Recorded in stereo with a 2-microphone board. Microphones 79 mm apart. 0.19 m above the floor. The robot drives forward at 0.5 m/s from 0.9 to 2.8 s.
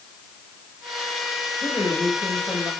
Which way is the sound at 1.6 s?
20° left (ahead or behind).